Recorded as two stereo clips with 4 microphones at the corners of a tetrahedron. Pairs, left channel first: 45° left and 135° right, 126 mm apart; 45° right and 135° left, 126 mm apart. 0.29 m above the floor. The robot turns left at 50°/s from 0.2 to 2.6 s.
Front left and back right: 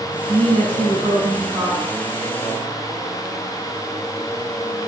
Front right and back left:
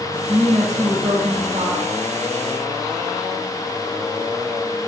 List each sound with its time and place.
0.3 s a woman speaking: 145° right, 3 m; by 1.8 s 135° left, 3 m